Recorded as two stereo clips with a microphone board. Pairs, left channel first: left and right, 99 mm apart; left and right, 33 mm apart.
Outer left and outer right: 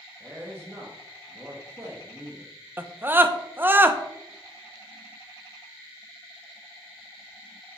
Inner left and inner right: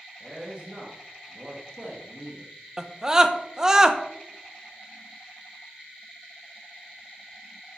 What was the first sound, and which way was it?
A man speaking, 25° right (ahead or behind).